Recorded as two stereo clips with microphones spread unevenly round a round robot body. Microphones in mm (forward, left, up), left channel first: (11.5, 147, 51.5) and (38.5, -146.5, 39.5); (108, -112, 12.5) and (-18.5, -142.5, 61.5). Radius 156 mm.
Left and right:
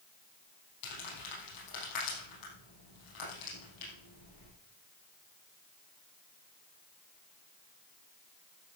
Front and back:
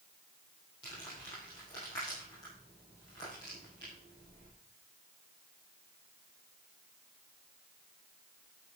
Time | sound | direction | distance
0.8 | crumpling | 85° left | 5.5 m